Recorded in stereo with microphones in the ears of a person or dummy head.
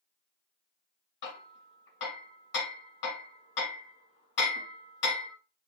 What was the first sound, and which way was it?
Hammering, 55° left (ahead or behind).